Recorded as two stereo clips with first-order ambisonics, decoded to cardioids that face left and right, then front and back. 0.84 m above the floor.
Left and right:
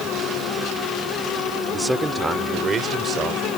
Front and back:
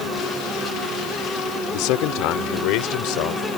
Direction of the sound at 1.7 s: 5° right.